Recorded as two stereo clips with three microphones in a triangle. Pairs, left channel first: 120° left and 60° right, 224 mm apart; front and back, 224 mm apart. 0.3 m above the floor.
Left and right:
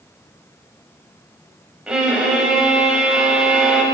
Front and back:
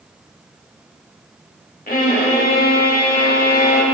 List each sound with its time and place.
1.9 s a violin: 25° left, 1.0 m